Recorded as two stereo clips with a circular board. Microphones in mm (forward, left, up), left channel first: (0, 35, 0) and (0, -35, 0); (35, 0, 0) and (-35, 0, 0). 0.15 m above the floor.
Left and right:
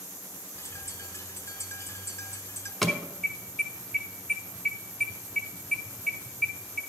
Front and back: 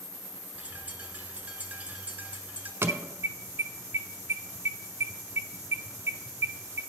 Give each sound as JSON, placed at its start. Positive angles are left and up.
{"t": 0.6, "sound": "a bird", "azimuth_deg": 115, "distance_m": 0.9}
{"t": 2.8, "sound": "an alarm", "azimuth_deg": 180, "distance_m": 0.8}